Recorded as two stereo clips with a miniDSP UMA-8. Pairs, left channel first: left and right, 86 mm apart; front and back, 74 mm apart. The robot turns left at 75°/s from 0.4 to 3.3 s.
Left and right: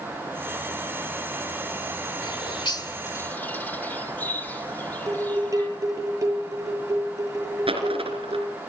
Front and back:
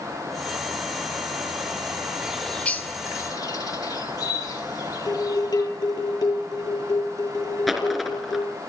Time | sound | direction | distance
2.2 | a bird | 105° left | 1.7 m
5.1 | dishes clattering | 35° right | 10 m
7.7 | a dropped coin | 90° right | 3.5 m